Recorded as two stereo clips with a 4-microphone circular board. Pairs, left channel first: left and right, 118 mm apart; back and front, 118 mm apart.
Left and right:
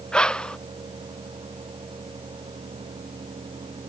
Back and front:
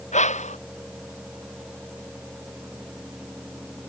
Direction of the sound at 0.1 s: 175° left.